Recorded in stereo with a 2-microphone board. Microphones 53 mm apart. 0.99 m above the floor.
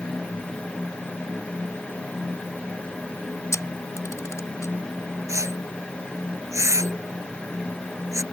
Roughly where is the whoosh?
Right.